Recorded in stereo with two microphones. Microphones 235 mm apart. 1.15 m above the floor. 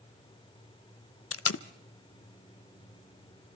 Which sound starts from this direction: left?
Tape being pulled, at 1.3 s.